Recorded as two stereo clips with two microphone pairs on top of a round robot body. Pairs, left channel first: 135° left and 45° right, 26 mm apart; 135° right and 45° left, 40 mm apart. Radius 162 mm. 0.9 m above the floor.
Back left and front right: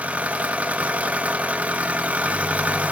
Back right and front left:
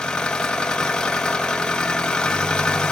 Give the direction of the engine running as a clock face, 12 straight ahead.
2 o'clock.